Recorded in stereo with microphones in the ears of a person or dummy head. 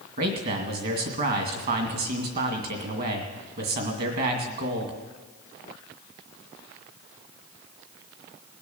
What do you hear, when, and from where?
0.2 s a man speaking: 55° right (ahead or behind), 2 m